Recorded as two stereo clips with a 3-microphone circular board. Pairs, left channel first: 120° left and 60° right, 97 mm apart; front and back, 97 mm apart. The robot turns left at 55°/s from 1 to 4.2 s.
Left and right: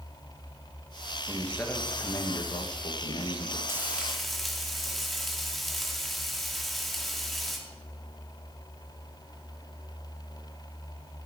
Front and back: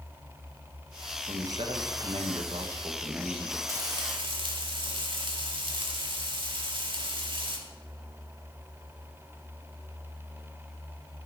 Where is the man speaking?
145° right, 1.5 m; by 3.6 s 85° left, 1.5 m.